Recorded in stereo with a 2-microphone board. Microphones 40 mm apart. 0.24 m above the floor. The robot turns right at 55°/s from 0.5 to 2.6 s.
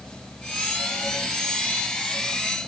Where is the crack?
I don't hear a crack.